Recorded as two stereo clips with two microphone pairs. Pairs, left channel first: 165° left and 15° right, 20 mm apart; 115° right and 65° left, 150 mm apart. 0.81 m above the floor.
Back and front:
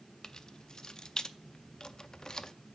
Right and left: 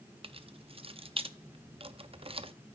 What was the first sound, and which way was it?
Keys jangling, 115° left.